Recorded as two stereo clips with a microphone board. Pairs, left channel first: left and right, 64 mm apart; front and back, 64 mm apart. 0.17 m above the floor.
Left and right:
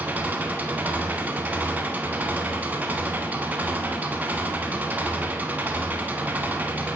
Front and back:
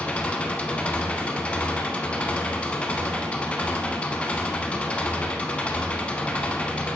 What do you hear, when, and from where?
0.0 s an engine running: 55° right, 0.9 m